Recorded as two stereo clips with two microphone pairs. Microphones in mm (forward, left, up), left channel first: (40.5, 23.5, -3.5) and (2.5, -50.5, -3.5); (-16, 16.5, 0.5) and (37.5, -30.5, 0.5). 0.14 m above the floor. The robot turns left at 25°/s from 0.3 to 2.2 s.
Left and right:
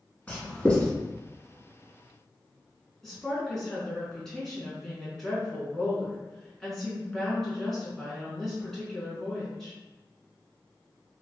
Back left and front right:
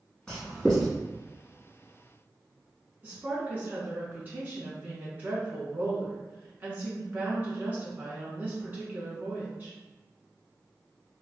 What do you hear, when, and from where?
0.3 s writing: 85° left, 1.1 m; by 0.9 s 70° left, 1.1 m
3.0 s a woman speaking: 15° right, 1.3 m